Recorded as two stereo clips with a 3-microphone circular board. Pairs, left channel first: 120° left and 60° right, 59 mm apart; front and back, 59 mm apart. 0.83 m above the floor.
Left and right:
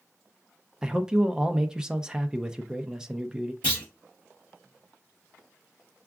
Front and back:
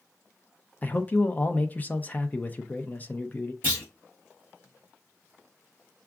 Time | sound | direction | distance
0.8 | a man speaking | 5° left | 0.5 m
3.6 | a clunk | 55° left | 2.5 m